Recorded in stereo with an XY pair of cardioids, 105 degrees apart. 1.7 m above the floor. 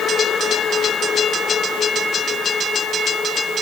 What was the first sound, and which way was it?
Only background noise.